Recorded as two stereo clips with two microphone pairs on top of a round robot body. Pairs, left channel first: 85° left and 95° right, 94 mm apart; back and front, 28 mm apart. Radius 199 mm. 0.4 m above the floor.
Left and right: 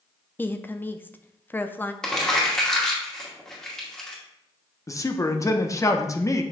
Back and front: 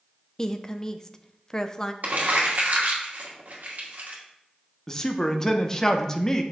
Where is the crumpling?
Straight ahead, 2.5 m.